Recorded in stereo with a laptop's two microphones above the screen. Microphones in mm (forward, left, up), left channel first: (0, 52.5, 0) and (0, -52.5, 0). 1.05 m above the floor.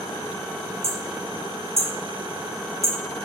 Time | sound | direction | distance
0.8 | hammering | 80° right | 1.7 m